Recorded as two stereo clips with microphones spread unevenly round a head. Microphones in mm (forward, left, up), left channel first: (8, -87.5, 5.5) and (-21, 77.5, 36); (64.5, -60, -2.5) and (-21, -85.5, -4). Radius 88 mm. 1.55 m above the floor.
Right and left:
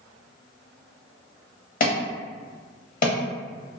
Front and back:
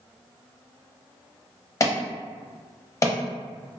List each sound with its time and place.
1.8 s an alarm: 35° right, 0.8 m